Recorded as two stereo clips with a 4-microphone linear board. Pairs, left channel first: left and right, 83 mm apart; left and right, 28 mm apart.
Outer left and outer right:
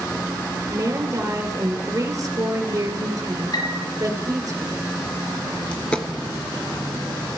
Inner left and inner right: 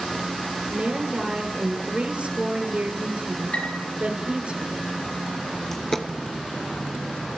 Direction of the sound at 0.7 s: 45° right (ahead or behind).